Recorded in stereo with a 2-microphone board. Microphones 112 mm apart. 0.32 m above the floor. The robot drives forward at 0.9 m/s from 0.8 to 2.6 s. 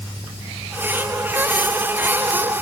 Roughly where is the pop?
No pop in this recording.